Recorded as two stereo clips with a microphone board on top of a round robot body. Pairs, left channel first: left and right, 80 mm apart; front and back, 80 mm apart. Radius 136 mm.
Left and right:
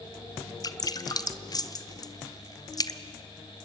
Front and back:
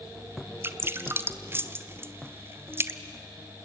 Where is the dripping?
120° left, 1.1 m.